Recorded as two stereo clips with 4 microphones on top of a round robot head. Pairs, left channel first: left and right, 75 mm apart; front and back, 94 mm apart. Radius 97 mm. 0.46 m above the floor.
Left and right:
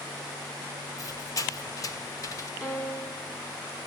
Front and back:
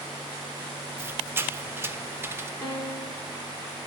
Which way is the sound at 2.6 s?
55° left.